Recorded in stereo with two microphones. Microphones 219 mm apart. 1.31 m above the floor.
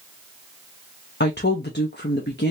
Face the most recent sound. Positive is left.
turn(degrees=50)  # may be behind; listen again after turning